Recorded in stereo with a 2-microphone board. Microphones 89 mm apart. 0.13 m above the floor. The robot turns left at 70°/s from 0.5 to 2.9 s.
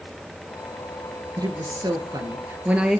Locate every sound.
1.4 s a woman speaking: 65° right, 2.5 m; by 3.0 s 170° right, 2.5 m